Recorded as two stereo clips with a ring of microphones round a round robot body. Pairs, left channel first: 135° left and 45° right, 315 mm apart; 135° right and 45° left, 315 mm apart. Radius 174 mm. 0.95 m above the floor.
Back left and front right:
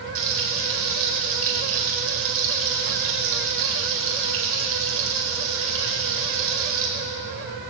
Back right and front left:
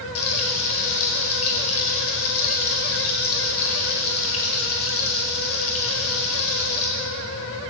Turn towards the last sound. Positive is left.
turn(degrees=-90)